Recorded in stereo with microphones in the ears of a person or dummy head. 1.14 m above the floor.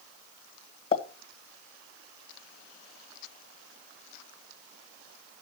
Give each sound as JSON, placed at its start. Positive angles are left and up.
{"t": 0.9, "sound": "a pop", "side_deg": 35, "distance_m": 1.9}